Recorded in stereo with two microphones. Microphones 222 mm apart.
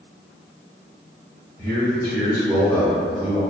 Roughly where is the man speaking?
Centre.